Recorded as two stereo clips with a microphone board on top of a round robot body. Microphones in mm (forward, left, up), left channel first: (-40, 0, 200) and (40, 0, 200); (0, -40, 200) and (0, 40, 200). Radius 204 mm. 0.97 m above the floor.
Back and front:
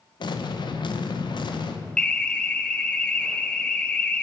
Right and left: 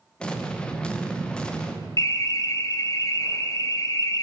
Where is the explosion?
170° right, 1.1 m.